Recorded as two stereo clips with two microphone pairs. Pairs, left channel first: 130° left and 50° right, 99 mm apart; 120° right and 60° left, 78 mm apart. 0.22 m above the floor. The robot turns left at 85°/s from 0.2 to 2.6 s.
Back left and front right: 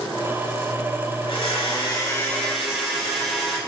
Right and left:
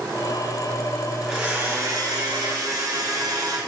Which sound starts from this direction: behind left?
A blender, at 1.2 s.